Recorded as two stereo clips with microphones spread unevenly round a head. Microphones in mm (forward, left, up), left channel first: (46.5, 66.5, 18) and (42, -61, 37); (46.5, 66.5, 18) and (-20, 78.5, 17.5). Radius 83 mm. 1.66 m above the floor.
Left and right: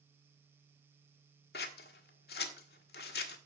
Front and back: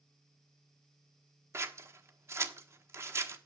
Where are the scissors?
125° left, 1.3 m.